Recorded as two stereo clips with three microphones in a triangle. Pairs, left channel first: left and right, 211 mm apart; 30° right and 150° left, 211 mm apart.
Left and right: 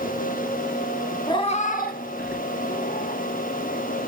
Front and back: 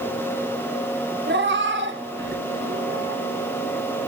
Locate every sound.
1.3 s a cat meowing: 155° left, 0.8 m; by 3.2 s 120° left, 3 m